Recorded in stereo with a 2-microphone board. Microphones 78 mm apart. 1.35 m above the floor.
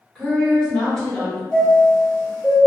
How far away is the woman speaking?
About 1.3 m.